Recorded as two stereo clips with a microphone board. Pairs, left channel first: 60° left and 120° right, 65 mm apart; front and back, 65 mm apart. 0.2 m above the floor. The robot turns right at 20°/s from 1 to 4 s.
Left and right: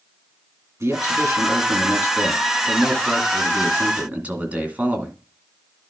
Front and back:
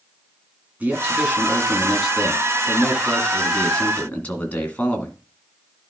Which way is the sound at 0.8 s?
120° right.